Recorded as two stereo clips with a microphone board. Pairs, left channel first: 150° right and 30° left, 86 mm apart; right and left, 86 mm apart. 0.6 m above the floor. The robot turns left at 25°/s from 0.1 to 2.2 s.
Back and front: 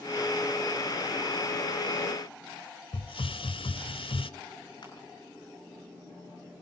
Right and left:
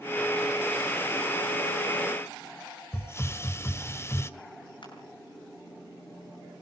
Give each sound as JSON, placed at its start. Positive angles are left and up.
{"t": 2.9, "sound": "a hiss", "azimuth_deg": -150, "distance_m": 0.9}
{"t": 4.8, "sound": "crushing", "azimuth_deg": -115, "distance_m": 8.0}